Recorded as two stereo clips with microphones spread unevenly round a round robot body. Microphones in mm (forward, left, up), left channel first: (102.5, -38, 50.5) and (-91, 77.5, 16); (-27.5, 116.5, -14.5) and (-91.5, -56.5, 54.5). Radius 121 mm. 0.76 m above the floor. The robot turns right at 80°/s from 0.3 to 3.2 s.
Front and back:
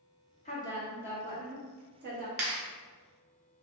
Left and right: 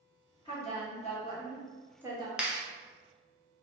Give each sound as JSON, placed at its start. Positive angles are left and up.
{"t": 0.5, "sound": "a woman speaking", "azimuth_deg": 30, "distance_m": 1.4}
{"t": 2.4, "sound": "a clap", "azimuth_deg": 150, "distance_m": 1.0}